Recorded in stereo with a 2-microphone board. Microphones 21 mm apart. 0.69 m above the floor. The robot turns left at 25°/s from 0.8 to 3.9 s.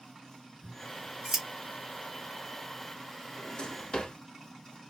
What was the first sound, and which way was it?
Scissors, 40° right (ahead or behind).